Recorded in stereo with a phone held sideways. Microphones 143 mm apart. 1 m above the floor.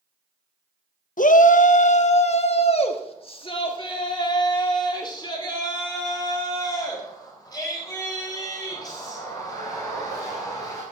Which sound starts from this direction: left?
A shout, at 1.2 s.